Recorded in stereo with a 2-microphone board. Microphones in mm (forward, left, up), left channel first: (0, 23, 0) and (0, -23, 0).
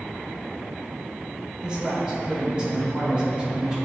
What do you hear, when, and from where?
1.6 s a man speaking: 20° right (ahead or behind), 1.9 m